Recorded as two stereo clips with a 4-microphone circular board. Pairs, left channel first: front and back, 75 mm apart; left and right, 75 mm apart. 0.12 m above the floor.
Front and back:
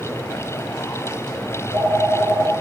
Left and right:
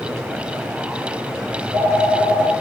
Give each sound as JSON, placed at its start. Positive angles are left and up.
{"t": 1.5, "sound": "a phone ringing", "azimuth_deg": -135, "distance_m": 4.5}